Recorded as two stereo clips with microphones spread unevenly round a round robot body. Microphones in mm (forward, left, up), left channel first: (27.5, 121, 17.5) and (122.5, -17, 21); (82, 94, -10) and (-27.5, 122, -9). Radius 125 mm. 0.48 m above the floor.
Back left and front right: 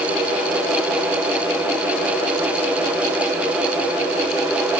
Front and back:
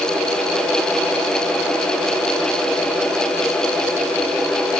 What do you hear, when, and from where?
Only background noise.